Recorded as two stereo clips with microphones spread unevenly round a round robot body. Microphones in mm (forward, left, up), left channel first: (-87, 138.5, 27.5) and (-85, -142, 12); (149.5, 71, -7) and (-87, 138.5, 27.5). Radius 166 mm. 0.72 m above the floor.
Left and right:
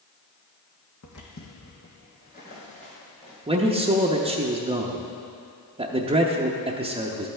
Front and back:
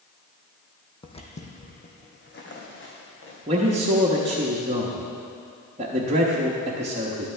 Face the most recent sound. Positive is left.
turn(degrees=-140)